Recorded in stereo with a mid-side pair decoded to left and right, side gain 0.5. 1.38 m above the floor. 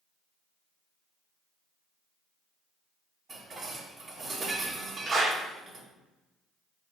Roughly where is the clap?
Ahead right.